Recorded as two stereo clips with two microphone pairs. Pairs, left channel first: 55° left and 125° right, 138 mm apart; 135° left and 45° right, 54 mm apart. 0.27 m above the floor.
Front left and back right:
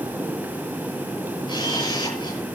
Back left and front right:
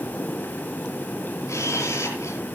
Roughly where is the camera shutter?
Left.